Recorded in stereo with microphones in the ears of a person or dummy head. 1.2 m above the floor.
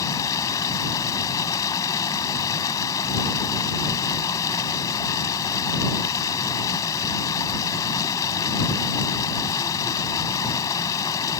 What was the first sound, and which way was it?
Running water, 20° left (ahead or behind).